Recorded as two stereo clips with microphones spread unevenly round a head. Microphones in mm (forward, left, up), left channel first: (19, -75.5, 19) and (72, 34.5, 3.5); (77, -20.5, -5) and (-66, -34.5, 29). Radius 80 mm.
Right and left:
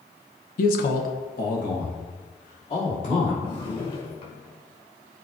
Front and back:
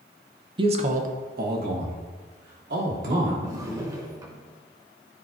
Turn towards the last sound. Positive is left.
turn(degrees=-135)